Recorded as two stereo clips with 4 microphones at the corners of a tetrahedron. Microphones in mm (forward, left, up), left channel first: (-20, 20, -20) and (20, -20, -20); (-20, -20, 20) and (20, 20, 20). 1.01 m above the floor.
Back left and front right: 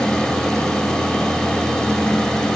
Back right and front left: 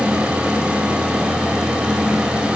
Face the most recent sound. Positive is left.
No sound to turn to.